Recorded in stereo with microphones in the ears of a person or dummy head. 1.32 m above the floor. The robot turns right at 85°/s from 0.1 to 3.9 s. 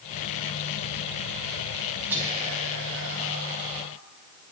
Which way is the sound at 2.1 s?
170° right.